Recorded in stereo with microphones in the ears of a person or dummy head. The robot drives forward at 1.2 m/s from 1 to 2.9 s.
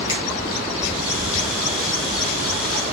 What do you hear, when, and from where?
0.1 s a finger snap: 25° left (ahead or behind), 5.5 m